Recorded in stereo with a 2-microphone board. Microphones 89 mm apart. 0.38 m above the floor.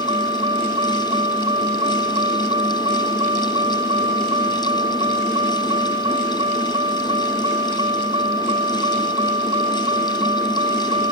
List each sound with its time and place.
0.0 s a vehicle: 70° right (ahead or behind)